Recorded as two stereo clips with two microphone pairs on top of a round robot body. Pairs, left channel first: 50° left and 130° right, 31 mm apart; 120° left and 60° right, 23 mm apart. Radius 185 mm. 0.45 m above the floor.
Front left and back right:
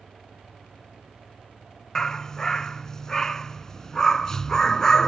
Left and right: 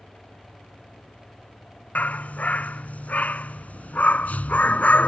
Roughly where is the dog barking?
Behind left.